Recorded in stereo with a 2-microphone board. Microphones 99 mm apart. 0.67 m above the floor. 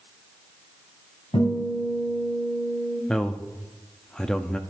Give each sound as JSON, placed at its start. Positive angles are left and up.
{"t": 1.3, "sound": "a guitar", "side_deg": 65, "distance_m": 5.5}
{"t": 3.1, "sound": "a man speaking", "side_deg": 5, "distance_m": 0.6}